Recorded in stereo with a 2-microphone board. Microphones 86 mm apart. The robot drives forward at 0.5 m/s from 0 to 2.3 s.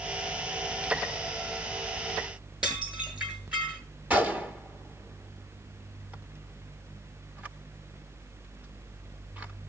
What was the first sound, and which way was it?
Dishes clattering, 10° right (ahead or behind).